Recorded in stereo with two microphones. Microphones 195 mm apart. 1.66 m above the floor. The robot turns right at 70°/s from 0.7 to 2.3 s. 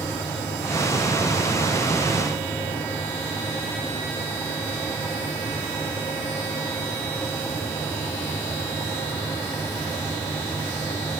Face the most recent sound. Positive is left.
No sound to turn to.